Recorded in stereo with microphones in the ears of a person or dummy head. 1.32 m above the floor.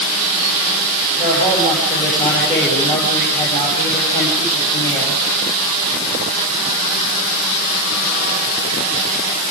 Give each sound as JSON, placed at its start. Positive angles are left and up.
{"t": 1.2, "sound": "a man speaking", "side_deg": 25, "distance_m": 9.0}